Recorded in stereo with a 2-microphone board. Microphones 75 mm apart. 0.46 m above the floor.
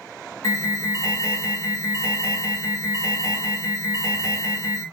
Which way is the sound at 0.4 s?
45° left (ahead or behind).